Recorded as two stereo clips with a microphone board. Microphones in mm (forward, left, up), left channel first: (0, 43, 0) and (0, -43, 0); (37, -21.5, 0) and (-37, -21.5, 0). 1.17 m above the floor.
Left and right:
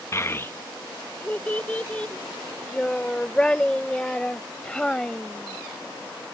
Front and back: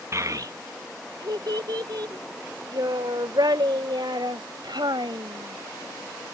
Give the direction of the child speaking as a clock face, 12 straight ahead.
7 o'clock.